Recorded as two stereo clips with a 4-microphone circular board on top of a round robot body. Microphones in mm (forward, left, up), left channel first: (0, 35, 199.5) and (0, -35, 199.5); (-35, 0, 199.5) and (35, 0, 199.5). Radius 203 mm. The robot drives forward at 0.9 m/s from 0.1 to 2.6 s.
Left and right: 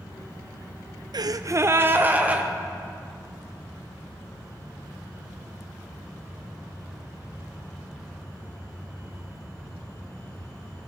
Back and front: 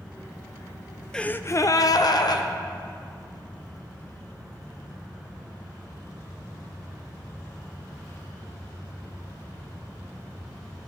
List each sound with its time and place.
1.1 s a gasp: 100° right, 0.6 m; by 2.5 s 160° right, 1.4 m